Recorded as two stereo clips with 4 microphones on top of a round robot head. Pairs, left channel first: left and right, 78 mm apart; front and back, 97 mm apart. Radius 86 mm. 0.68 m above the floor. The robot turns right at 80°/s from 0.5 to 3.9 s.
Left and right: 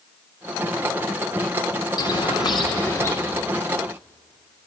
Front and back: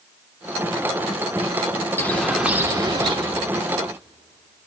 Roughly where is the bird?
Ahead left.